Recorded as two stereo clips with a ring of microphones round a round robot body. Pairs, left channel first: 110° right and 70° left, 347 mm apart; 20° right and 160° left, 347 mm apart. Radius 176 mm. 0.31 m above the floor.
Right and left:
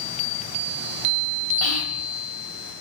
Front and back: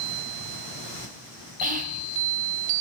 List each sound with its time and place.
1.6 s whispering: 145° right, 1.7 m